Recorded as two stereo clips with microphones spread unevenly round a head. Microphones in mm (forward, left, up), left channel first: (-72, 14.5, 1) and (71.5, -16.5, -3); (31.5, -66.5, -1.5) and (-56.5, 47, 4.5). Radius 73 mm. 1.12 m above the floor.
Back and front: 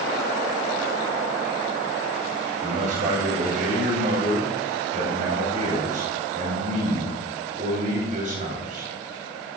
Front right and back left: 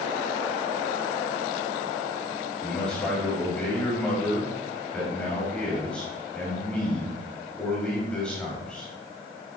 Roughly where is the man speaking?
Ahead left.